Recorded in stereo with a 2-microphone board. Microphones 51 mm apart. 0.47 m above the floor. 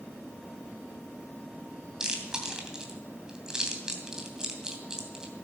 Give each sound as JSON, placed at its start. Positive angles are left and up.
{"t": 2.0, "sound": "chewing", "side_deg": -15, "distance_m": 2.5}